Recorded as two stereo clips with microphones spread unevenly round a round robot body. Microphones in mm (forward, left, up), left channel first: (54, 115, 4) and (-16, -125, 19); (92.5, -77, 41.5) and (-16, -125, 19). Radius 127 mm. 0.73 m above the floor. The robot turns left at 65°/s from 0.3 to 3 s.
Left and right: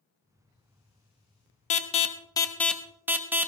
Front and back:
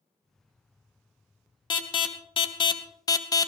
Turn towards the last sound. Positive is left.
turn(degrees=-25)